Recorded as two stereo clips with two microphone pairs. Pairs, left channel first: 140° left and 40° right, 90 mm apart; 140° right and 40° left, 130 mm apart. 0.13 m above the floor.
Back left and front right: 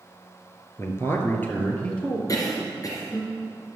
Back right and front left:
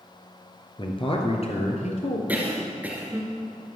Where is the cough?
115° left, 2.5 m.